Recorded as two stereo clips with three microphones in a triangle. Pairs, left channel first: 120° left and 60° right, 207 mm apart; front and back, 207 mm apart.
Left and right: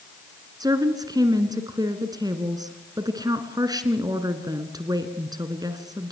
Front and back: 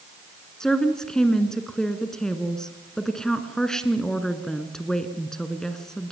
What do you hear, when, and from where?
0.6 s a woman speaking: 80° right, 1.7 m